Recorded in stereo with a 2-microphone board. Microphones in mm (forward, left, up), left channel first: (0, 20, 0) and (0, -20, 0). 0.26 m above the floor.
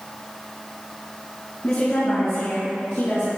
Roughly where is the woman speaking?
Left.